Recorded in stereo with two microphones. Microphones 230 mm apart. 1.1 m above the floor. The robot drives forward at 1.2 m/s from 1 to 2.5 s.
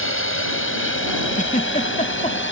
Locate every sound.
0.0 s a drone: 60° left (ahead or behind); by 2.5 s 55° left (ahead or behind)
1.4 s a giggle: 35° left (ahead or behind); by 2.4 s 30° left (ahead or behind)